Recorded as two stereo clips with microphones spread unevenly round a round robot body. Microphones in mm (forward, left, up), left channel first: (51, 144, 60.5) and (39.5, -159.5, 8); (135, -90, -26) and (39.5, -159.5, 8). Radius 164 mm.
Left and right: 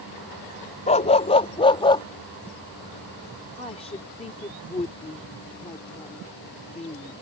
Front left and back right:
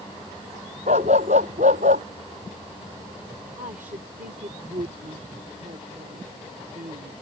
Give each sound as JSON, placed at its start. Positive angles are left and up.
{"t": 0.9, "sound": "a dog barking", "azimuth_deg": 160}
{"t": 3.6, "sound": "a woman speaking", "azimuth_deg": 165}